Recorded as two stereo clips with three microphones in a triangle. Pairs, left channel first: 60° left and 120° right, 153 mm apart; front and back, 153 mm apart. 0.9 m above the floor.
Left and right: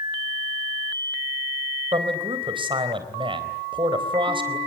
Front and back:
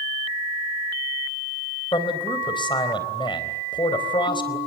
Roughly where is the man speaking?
Ahead right.